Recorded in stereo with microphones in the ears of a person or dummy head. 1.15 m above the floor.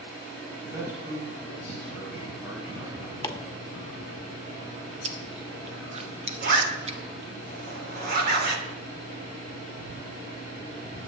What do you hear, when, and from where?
0.6 s a man speaking: 15° right (ahead or behind), 5.5 m
3.2 s chopping: 15° left (ahead or behind), 1.5 m
5.0 s chewing: 30° right (ahead or behind), 0.7 m
6.4 s a zipper: 60° right (ahead or behind), 3 m